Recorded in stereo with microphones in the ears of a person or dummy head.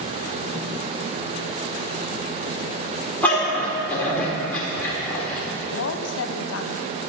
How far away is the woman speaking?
About 0.8 m.